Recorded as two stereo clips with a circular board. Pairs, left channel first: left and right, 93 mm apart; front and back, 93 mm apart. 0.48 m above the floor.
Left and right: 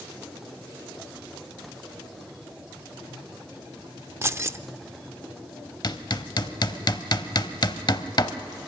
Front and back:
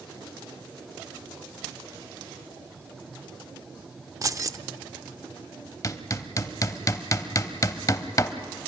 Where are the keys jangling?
145° right, 0.5 m.